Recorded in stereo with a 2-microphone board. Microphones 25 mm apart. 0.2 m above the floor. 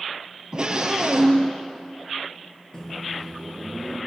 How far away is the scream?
About 5 m.